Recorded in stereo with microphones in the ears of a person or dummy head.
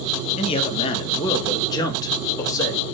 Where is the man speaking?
25° left (ahead or behind), 1.6 m; by 2.9 s 15° left (ahead or behind), 3 m.